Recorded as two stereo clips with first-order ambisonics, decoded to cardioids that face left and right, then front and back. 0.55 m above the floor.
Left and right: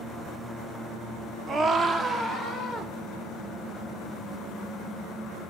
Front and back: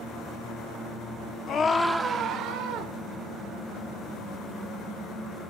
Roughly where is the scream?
Ahead right.